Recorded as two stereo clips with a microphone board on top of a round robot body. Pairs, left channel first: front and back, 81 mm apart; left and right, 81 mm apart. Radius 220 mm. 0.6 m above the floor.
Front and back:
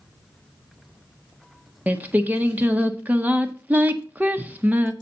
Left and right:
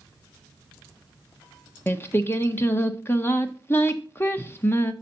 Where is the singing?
125° left, 1.2 m.